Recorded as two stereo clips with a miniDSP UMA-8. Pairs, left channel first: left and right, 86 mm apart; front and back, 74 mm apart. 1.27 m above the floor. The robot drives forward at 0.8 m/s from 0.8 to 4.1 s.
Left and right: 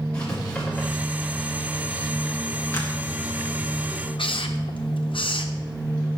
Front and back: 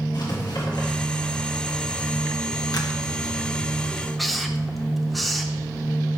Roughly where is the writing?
Ahead.